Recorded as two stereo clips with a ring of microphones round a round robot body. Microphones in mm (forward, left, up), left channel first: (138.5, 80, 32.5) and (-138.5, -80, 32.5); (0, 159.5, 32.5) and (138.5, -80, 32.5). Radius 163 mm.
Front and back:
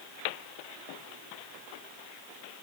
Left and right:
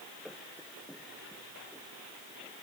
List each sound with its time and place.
Only background noise.